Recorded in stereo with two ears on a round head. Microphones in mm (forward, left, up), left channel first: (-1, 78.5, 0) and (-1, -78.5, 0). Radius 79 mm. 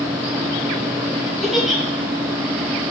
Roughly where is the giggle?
Centre.